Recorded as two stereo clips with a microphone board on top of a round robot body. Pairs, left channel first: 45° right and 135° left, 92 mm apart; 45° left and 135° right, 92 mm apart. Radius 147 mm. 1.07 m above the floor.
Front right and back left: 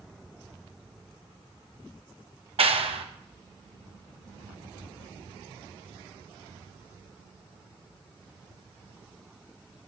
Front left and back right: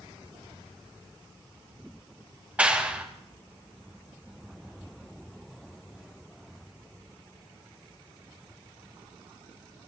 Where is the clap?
150° left, 1.6 m.